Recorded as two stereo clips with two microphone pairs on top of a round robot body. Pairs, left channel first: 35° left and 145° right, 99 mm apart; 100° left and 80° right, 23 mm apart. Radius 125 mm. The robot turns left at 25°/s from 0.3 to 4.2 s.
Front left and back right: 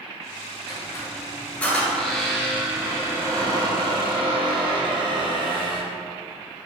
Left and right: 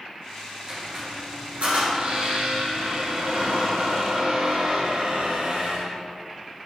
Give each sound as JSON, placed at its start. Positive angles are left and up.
{"t": 0.7, "sound": "a squeak", "azimuth_deg": -15, "distance_m": 2.0}